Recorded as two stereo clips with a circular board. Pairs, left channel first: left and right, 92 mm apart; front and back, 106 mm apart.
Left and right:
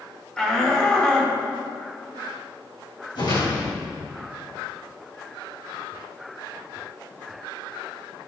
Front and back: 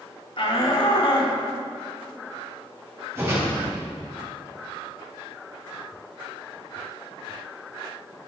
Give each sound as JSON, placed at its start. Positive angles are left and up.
{"t": 0.4, "sound": "a shout", "azimuth_deg": 10, "distance_m": 1.9}
{"t": 3.1, "sound": "a whoosh", "azimuth_deg": 120, "distance_m": 4.0}